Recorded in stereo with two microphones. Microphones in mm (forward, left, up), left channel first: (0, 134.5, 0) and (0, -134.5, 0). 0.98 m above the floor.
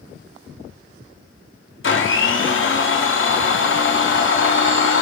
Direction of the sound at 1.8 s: 50° left (ahead or behind).